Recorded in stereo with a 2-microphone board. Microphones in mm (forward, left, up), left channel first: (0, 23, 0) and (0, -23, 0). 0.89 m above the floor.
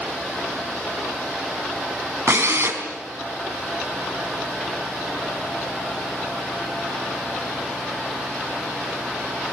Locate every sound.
2.3 s a drill: 75° right (ahead or behind), 4.5 m